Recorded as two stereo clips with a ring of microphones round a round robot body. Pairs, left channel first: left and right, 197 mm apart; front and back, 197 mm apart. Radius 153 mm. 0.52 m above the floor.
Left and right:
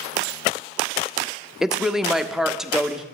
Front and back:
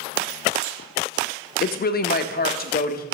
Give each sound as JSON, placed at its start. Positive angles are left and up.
{"t": 1.6, "sound": "a woman speaking", "azimuth_deg": -5, "distance_m": 0.9}